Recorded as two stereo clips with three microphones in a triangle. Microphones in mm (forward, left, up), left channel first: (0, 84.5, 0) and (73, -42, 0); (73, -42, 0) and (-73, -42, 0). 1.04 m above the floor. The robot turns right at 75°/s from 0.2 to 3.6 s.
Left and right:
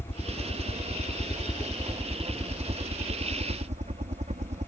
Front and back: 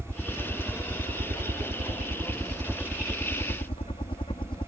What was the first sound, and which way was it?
A helicopter, 80° left.